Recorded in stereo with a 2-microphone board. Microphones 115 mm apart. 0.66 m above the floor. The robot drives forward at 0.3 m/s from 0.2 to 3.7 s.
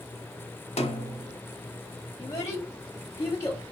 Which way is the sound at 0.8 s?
70° left (ahead or behind).